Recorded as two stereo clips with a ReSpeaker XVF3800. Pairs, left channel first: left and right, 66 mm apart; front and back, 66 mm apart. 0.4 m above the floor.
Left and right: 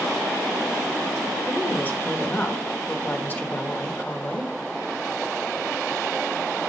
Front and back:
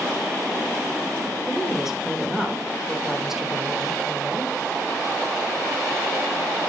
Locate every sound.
1.5 s a woman speaking: 100° left, 1.4 m